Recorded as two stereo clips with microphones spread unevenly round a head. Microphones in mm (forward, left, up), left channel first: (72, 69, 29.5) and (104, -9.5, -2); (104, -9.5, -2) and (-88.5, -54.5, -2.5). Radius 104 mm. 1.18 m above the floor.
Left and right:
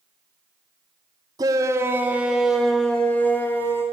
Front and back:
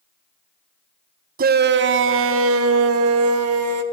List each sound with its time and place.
1.4 s a shout: 120° right, 0.9 m; by 3.8 s 170° right, 2 m